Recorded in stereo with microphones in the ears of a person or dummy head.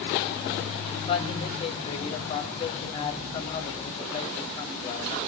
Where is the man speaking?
20° left (ahead or behind), 1.6 m.